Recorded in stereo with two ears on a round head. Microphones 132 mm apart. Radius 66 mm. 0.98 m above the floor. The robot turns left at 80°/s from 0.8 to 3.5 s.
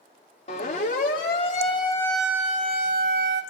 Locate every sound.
0.5 s a siren: 50° left (ahead or behind), 3.5 m; by 3.4 s 65° right (ahead or behind), 3.5 m